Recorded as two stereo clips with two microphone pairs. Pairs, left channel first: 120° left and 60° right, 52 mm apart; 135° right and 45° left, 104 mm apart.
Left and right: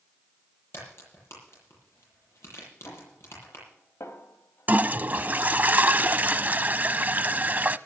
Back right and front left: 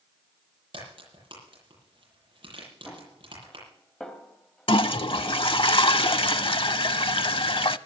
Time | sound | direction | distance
0.7 | a crack | 85° left | 10 m
2.9 | a snare drum | 140° left | 2.5 m
4.7 | a toilet flushing | 110° right | 0.5 m